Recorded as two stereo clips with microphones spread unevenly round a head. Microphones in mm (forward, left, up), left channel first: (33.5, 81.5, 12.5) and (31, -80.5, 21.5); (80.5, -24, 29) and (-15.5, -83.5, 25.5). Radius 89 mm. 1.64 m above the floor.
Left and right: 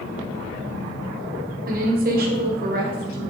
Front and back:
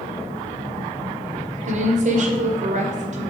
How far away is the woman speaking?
About 1.1 m.